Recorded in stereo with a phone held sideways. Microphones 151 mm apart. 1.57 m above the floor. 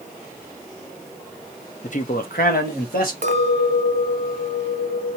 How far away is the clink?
About 0.9 m.